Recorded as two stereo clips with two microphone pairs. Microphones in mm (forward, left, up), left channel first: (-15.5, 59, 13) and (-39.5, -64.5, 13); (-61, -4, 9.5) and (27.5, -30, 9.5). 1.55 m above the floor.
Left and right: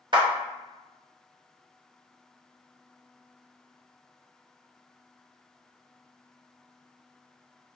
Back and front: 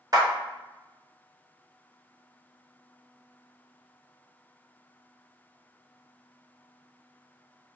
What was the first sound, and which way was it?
A clap, 60° right.